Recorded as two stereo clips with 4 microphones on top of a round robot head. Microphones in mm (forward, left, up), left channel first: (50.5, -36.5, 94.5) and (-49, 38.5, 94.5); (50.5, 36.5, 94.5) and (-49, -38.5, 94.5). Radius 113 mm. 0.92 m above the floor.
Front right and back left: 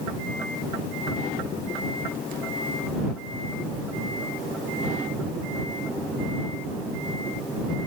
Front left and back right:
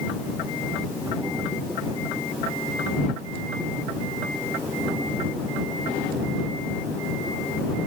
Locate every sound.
Only background noise.